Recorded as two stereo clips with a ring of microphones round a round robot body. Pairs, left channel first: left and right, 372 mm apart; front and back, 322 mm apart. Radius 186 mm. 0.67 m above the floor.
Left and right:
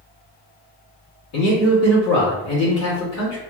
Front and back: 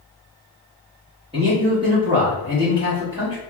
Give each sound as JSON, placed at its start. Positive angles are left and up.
{"t": 1.3, "sound": "a man speaking", "azimuth_deg": 115, "distance_m": 1.5}